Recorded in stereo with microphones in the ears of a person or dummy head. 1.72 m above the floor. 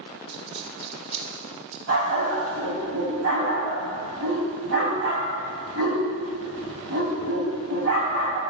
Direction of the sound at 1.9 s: 50° right (ahead or behind).